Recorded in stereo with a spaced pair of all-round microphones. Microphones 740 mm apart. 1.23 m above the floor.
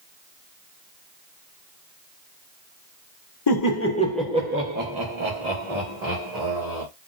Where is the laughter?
35° left (ahead or behind), 0.8 m; by 6.8 s 60° right (ahead or behind), 1.8 m.